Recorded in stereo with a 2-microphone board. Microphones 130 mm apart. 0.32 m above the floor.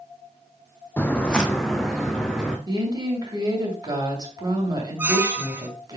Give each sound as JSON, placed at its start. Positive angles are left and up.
{"t": 1.0, "sound": "footsteps", "side_deg": 15, "distance_m": 0.7}
{"t": 2.7, "sound": "a woman speaking", "side_deg": -35, "distance_m": 2.0}
{"t": 5.0, "sound": "a squeak", "side_deg": -15, "distance_m": 0.6}